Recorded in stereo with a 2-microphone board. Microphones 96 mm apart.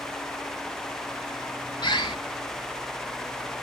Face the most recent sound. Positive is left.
turn(degrees=55)  # may be behind; listen again after turning